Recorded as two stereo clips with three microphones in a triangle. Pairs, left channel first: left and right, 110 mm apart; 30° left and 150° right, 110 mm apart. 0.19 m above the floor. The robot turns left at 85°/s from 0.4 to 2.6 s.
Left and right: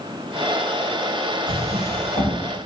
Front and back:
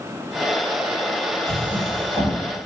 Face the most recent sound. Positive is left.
turn(degrees=-150)